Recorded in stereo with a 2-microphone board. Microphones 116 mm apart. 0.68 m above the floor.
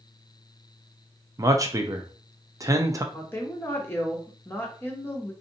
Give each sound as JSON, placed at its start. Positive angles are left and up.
{"t": 1.4, "sound": "a man speaking", "side_deg": -30, "distance_m": 0.5}
{"t": 3.1, "sound": "a woman speaking", "side_deg": 20, "distance_m": 0.9}